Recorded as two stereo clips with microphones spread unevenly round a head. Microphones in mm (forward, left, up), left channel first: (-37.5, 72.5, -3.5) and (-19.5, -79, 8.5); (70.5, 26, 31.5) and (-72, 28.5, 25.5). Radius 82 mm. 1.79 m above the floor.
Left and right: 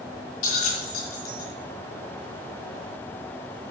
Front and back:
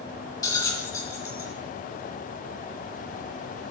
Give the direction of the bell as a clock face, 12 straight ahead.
10 o'clock.